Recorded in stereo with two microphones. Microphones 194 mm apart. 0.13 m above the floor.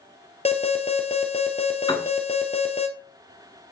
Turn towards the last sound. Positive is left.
turn(degrees=25)  # may be behind; listen again after turning